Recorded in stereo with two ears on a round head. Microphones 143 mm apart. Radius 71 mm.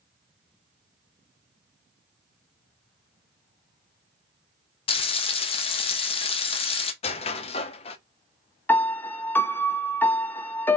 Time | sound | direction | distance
4.9 | frying | 35° left (ahead or behind) | 0.8 m
7.0 | a squeak | 40° left (ahead or behind) | 0.6 m
8.7 | a piano | 10° left (ahead or behind) | 0.5 m